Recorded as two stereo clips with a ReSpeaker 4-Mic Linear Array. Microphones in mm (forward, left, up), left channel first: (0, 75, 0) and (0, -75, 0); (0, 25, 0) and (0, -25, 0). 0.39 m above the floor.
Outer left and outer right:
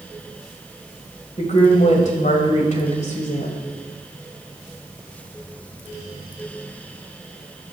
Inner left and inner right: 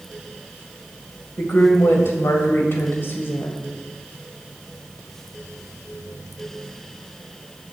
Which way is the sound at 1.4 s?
50° left (ahead or behind).